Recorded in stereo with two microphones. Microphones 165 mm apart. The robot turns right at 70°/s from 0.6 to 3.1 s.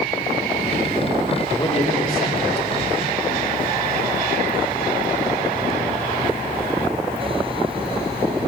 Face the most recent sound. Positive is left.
turn(degrees=135)